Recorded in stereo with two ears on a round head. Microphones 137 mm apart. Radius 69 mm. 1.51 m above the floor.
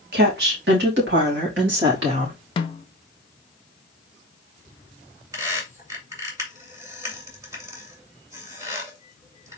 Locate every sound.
0.1 s a woman speaking: 65° right (ahead or behind), 2 m; by 2.4 s 85° right, 3.5 m
2.6 s a snare drum: 35° left (ahead or behind), 0.6 m
5.3 s a squeak: 20° right (ahead or behind), 2 m